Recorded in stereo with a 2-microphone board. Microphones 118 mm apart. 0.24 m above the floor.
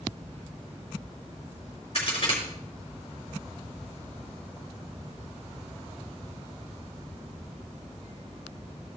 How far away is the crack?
About 3.5 m.